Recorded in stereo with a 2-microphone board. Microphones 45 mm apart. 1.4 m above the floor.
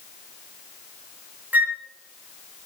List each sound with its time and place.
1.5 s a flute: 40° right (ahead or behind), 0.6 m